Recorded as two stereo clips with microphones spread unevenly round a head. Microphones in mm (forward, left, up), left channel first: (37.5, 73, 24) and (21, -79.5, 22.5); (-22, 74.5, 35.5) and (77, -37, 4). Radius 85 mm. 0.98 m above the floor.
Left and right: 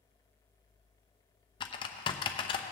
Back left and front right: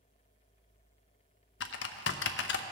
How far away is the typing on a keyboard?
About 0.5 m.